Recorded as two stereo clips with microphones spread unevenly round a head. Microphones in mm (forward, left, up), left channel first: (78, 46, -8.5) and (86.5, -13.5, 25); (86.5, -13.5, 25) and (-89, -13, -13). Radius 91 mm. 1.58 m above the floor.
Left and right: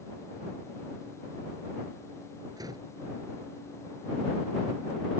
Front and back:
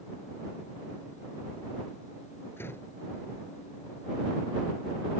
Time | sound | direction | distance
2.6 | a door slam | 75° right | ?